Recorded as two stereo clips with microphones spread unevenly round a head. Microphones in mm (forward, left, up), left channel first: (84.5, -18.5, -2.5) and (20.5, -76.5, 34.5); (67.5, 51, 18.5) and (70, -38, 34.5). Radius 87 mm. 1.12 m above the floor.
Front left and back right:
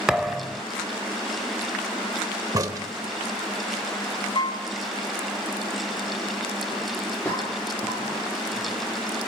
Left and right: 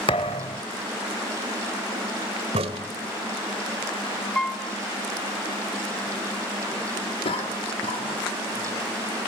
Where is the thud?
155° left, 0.7 m.